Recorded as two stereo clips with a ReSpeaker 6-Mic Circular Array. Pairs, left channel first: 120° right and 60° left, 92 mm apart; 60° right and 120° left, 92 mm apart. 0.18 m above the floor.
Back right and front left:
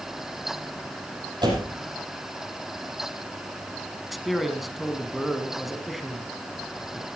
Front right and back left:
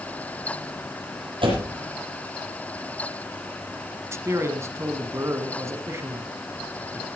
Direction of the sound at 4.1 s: 150° left.